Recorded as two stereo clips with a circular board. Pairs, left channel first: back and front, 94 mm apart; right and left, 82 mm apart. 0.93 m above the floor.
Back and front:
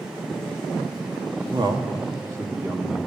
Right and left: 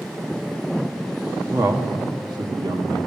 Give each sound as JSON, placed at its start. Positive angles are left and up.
{"t": 1.5, "sound": "a man speaking", "azimuth_deg": 35, "distance_m": 1.3}